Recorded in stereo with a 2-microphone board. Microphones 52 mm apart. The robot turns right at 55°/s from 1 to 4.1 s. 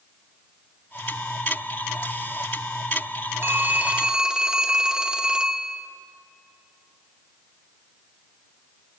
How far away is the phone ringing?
About 1.4 m.